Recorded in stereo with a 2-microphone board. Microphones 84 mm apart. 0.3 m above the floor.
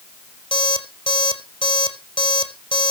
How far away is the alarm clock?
About 5 m.